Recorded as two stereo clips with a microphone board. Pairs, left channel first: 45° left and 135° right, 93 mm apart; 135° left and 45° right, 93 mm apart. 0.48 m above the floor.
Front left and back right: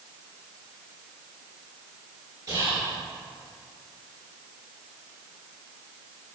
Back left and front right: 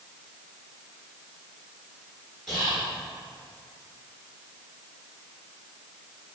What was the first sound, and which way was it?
Whispering, 130° right.